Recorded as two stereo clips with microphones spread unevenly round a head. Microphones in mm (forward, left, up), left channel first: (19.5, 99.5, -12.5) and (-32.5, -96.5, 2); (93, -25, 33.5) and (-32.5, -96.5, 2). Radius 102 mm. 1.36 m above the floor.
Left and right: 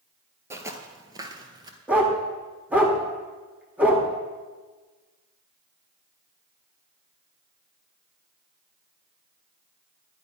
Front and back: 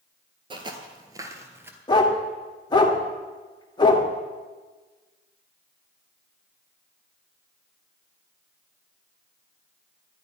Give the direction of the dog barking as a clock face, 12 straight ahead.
1 o'clock.